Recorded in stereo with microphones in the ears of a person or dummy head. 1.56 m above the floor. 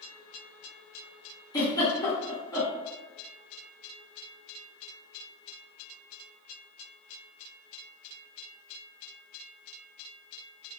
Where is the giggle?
20° left (ahead or behind), 0.9 m.